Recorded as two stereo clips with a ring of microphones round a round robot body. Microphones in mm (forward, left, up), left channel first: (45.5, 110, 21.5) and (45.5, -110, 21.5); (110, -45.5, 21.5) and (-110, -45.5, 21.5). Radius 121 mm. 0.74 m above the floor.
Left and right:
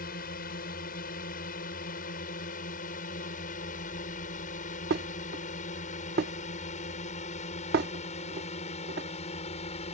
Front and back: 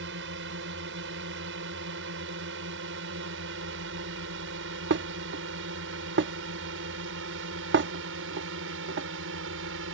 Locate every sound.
0.0 s a drone: 140° left; by 9.9 s 150° left
4.9 s dishes clattering: 140° right